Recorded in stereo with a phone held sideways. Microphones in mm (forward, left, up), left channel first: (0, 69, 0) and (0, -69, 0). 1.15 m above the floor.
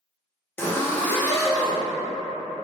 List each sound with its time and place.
0.6 s a zipper: 15° left (ahead or behind), 0.7 m